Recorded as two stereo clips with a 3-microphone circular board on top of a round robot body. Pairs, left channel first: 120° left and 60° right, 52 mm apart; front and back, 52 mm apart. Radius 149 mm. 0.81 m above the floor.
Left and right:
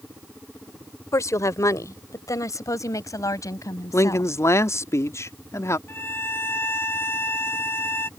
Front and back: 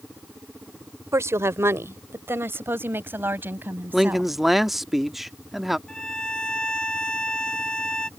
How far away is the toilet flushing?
No toilet flushing in this recording.